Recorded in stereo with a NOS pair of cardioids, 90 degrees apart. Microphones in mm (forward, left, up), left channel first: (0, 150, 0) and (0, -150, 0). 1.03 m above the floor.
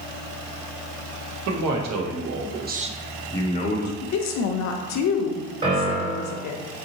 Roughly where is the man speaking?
Right.